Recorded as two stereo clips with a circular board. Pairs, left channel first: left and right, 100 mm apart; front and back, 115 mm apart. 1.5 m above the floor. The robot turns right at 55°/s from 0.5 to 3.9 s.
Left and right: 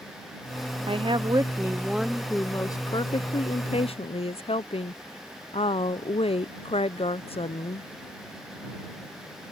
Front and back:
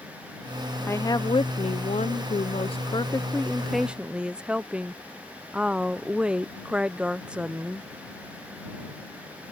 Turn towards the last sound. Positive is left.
turn(degrees=100)